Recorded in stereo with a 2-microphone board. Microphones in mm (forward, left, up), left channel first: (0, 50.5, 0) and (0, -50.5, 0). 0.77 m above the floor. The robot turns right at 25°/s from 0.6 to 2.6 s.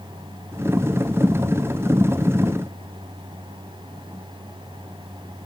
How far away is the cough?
I don't hear a cough.